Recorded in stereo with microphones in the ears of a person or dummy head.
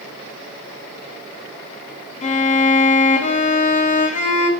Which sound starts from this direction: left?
A violin, at 2.2 s.